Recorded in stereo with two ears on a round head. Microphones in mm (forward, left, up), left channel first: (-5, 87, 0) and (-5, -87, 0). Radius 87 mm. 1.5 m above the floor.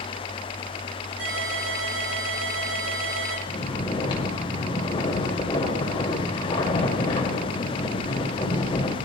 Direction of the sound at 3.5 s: 25° left (ahead or behind).